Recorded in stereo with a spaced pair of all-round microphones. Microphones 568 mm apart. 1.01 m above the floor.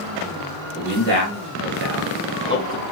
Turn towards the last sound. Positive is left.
turn(degrees=20)  # may be behind; listen again after turning